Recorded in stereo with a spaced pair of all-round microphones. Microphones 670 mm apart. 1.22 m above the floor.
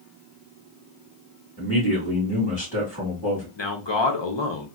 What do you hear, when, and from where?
1.6 s a man speaking: 20° left (ahead or behind), 1.9 m
3.6 s a man speaking: 40° left (ahead or behind), 0.7 m